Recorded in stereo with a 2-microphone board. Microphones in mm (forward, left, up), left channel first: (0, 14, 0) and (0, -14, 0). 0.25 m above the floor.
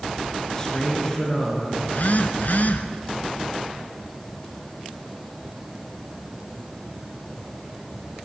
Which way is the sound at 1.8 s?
60° left (ahead or behind).